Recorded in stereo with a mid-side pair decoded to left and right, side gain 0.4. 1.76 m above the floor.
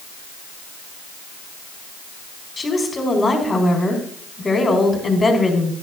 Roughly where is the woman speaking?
Ahead left.